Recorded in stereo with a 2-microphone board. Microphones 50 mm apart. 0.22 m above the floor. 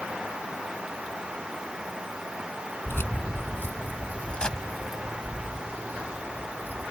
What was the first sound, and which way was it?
Keys jangling, 55° left (ahead or behind).